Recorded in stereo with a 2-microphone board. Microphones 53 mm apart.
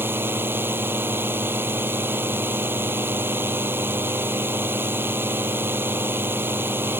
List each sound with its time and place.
0.0 s a drone: 45° right (ahead or behind)